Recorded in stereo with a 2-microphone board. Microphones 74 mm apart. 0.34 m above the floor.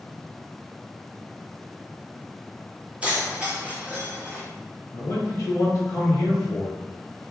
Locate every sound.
3.0 s keys jangling: 15° right (ahead or behind), 1.1 m
4.9 s a man speaking: 40° left (ahead or behind), 1.1 m